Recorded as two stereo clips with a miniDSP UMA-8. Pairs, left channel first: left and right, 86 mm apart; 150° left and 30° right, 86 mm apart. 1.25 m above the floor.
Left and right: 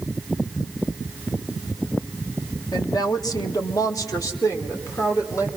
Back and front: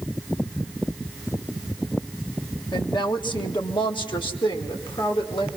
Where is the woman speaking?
125° left, 1.4 m; by 5.5 s 145° left, 2.5 m.